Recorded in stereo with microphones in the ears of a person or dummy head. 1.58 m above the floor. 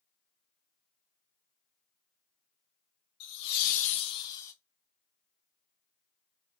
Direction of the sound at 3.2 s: 70° left (ahead or behind).